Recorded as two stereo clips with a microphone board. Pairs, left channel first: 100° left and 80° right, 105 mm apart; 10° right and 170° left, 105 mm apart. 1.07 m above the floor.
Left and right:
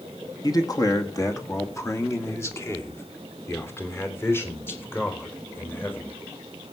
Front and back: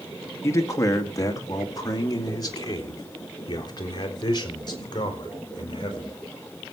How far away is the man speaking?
About 1.8 m.